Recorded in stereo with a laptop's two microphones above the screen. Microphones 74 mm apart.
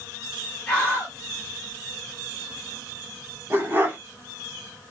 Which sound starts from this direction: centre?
A scream, at 0.7 s.